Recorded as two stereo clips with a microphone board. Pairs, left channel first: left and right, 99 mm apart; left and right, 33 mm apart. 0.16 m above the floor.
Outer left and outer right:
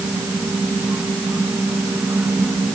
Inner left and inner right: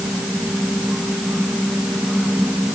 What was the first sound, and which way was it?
Only background noise.